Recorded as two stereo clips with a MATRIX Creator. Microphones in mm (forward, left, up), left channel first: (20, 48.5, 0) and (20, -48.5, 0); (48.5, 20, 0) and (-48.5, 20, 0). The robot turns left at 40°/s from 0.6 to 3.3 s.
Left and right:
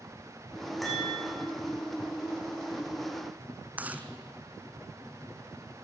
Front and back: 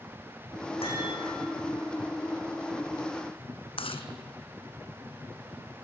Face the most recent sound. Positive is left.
turn(degrees=-15)